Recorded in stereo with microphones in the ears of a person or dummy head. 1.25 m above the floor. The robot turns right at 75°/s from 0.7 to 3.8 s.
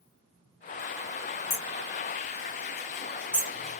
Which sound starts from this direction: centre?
Hammering, at 1.5 s.